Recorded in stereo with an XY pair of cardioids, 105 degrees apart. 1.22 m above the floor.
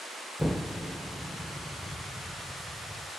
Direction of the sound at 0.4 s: 5° left.